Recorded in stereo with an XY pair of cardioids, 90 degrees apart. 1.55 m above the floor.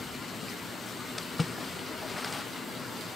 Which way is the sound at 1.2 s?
25° left.